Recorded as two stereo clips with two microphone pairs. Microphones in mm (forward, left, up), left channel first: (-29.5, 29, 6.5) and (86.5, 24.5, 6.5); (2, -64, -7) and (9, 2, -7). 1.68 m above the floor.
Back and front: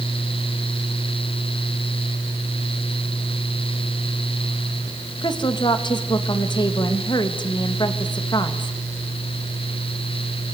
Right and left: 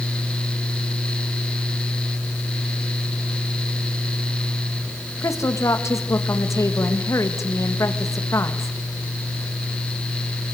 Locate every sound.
5.2 s a woman speaking: 135° right, 2 m